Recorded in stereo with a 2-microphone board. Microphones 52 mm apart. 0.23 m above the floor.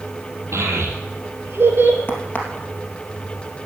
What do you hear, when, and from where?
0.5 s a child speaking: 70° right (ahead or behind), 3.5 m; by 2.0 s 45° right (ahead or behind), 2 m
2.1 s a crack: 30° left (ahead or behind), 2.5 m